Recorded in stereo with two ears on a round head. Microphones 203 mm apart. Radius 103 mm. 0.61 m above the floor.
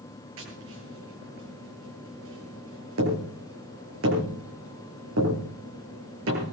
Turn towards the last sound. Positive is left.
turn(degrees=-65)  # may be behind; listen again after turning